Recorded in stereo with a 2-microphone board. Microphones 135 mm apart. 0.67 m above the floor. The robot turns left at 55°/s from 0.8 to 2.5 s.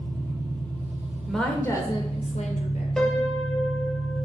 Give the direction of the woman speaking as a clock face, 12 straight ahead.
6 o'clock.